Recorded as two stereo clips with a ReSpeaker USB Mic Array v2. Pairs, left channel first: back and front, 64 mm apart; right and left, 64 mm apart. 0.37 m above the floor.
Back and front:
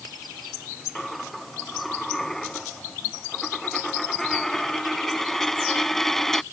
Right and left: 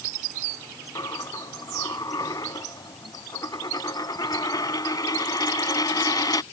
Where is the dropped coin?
95° right.